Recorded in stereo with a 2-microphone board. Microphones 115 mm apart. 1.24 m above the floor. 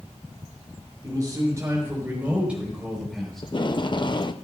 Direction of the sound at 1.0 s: 30° right (ahead or behind).